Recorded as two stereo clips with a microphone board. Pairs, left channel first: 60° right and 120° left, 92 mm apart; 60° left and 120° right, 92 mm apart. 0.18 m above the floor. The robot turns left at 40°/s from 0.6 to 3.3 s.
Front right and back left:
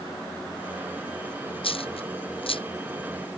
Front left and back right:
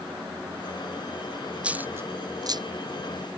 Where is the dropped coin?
40° right; by 2.6 s 80° right.